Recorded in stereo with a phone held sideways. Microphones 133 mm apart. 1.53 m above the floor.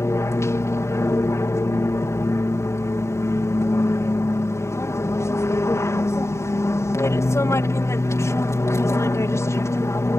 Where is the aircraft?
20° left (ahead or behind).